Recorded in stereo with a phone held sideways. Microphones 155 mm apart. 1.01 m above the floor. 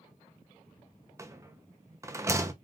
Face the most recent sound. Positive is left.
turn(degrees=-20)  # may be behind; listen again after turning